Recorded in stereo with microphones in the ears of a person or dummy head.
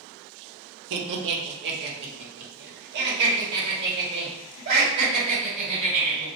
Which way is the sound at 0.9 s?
70° right (ahead or behind).